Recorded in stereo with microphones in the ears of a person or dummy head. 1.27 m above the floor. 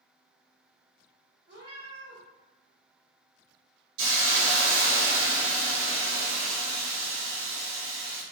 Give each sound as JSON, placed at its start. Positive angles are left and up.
{"t": 1.5, "sound": "a cat meowing", "side_deg": -50, "distance_m": 1.2}
{"t": 4.0, "sound": "a hiss", "side_deg": -65, "distance_m": 0.8}